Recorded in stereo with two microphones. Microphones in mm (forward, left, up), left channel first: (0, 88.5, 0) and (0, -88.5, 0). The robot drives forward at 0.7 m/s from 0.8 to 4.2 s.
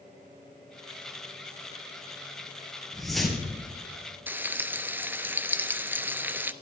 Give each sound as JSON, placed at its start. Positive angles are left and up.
{"t": 2.9, "sound": "a whoosh", "side_deg": 0, "distance_m": 3.0}
{"t": 4.3, "sound": "frying", "side_deg": -10, "distance_m": 0.5}